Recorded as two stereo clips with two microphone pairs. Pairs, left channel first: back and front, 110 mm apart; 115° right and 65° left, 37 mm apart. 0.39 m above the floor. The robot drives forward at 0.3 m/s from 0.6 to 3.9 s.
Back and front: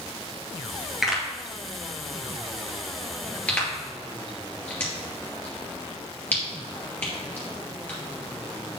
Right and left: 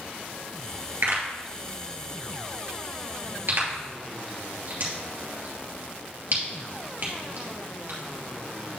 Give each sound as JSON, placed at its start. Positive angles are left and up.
{"t": 1.0, "sound": "a pop", "azimuth_deg": 85, "distance_m": 2.5}